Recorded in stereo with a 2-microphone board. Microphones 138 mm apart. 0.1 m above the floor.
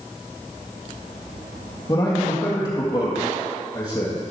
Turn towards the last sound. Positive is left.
turn(degrees=30)  # may be behind; listen again after turning